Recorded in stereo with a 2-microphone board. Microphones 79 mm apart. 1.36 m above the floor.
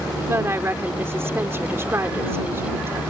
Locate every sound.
0.2 s a woman speaking: 30° right (ahead or behind)